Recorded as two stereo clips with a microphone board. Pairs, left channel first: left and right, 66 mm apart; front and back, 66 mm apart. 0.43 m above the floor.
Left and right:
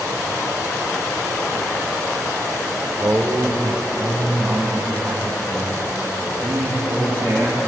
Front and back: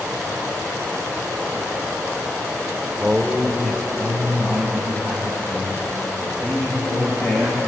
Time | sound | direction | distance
3.0 | a man speaking | 105° right | 1.1 m